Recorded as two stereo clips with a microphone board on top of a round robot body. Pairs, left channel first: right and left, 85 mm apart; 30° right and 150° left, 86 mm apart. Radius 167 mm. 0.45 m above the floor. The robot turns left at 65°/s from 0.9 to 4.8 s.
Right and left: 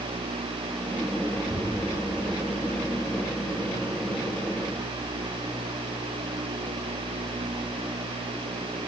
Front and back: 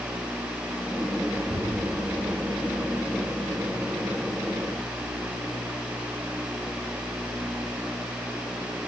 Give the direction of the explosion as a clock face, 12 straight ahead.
5 o'clock.